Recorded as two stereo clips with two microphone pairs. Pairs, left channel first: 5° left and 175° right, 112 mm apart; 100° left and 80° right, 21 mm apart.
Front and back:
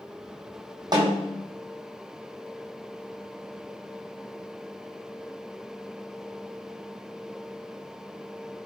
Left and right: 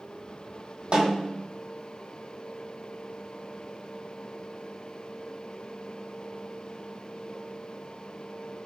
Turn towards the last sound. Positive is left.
turn(degrees=-125)